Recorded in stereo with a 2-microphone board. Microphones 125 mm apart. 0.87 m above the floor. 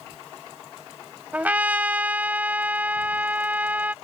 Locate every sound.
1.3 s a trumpet: 15° right (ahead or behind)